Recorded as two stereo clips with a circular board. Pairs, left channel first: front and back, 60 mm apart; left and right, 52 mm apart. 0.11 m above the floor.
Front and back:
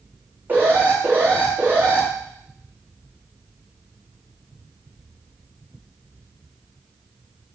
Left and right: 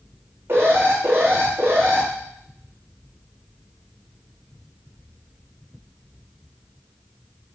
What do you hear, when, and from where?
0.5 s an alarm: 125° right, 5 m